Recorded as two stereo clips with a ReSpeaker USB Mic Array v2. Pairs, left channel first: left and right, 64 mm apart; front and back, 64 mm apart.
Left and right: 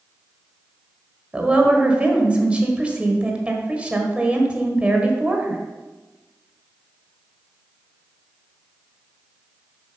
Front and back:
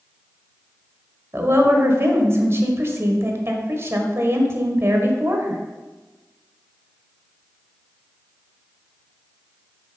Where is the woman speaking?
155° right, 1.5 m.